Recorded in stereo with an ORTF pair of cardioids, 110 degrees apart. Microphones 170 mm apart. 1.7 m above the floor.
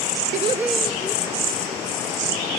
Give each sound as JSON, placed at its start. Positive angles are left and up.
{"t": 0.3, "sound": "laughter", "azimuth_deg": -50, "distance_m": 0.7}